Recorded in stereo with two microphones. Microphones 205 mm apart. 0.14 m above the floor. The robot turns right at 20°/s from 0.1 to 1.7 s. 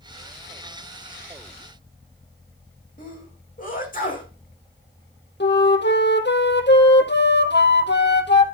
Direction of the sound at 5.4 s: 60° left (ahead or behind).